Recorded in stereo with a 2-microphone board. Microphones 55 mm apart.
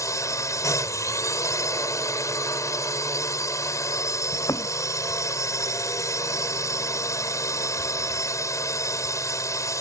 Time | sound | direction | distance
0.0 | a drone | 80° left | ?
4.3 | a thud | 80° left | ?